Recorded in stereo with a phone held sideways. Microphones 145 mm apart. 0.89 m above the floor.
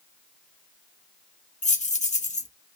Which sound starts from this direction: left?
Keys jangling, at 1.6 s.